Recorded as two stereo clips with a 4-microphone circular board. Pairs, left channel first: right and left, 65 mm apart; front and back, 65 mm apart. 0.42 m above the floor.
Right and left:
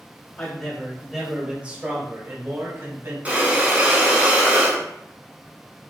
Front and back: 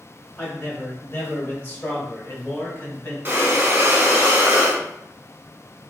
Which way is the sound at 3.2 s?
140° left.